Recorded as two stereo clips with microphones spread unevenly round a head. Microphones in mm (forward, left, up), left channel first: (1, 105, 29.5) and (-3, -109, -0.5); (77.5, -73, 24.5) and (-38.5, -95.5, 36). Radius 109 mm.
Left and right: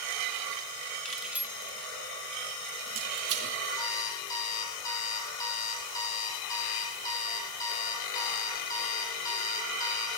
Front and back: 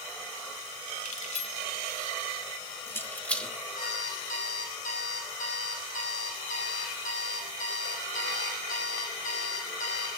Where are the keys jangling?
5° left, 1.8 m; by 3.6 s 75° right, 2 m.